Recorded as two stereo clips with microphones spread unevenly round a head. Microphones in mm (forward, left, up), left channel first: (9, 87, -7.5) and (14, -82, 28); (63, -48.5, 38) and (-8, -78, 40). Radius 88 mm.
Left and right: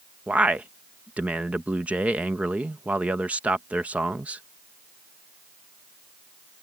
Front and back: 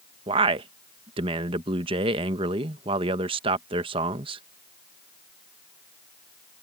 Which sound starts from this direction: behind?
A man speaking, at 0.3 s.